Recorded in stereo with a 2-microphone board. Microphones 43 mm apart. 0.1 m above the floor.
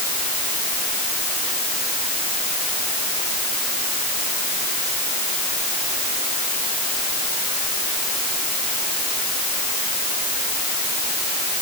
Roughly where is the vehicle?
No vehicle in this recording.